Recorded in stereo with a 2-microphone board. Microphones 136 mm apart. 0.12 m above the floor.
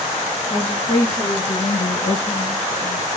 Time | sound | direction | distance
0.5 | a woman speaking | 35° left (ahead or behind) | 1.9 m